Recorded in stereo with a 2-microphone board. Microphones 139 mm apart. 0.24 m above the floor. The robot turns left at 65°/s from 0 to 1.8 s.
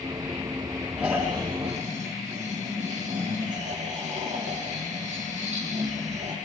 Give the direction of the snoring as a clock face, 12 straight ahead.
12 o'clock.